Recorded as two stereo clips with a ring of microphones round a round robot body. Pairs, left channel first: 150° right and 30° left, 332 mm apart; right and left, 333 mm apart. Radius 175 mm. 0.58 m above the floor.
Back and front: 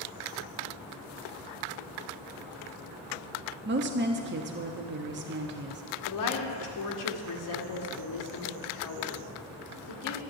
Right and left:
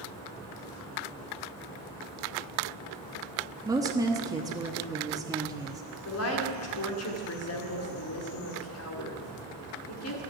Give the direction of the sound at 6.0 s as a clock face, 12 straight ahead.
4 o'clock.